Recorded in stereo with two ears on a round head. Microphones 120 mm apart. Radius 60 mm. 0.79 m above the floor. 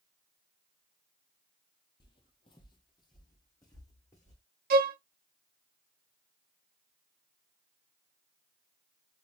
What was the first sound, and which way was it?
Footsteps, 35° left (ahead or behind).